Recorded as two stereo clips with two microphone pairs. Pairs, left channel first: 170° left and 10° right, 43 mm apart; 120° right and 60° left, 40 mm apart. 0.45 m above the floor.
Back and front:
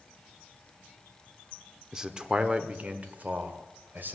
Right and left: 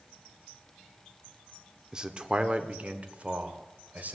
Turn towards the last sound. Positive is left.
turn(degrees=25)